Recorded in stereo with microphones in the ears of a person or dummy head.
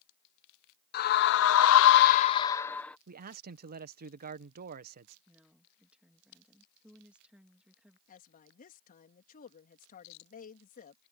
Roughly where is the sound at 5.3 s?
Centre.